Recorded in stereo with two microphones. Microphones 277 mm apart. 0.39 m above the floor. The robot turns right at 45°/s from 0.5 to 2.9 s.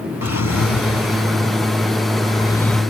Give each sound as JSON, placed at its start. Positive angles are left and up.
{"t": 0.2, "sound": "a drawer", "azimuth_deg": 75}